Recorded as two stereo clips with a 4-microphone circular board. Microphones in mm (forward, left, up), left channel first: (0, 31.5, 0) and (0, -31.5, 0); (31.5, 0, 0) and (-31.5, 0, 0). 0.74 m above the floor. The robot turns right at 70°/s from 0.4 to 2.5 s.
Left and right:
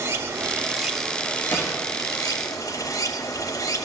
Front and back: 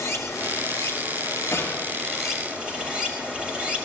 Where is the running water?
40° right, 3.5 m; by 3.9 s 110° left, 3.5 m.